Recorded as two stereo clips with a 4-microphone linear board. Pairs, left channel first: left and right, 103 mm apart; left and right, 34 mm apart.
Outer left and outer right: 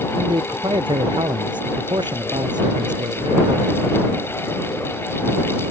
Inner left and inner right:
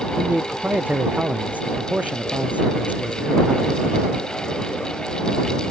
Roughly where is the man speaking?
Right.